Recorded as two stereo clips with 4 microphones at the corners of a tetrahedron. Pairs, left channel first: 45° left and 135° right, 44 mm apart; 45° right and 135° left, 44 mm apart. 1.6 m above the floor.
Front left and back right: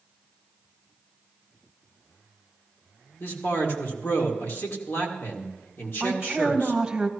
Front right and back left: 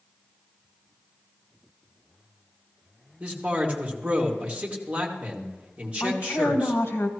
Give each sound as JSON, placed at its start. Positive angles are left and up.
{"t": 3.2, "sound": "a man speaking", "azimuth_deg": 70, "distance_m": 2.5}
{"t": 6.0, "sound": "a woman speaking", "azimuth_deg": -55, "distance_m": 1.6}